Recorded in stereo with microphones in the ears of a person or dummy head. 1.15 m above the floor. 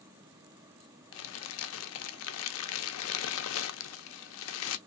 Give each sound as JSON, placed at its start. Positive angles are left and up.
{"t": 1.1, "sound": "crumpling", "side_deg": 85, "distance_m": 0.6}